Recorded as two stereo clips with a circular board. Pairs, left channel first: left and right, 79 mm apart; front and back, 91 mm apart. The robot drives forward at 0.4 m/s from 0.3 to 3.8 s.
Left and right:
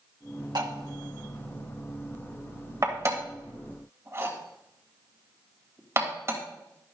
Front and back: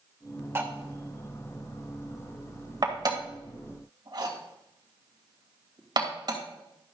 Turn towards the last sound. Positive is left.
turn(degrees=-145)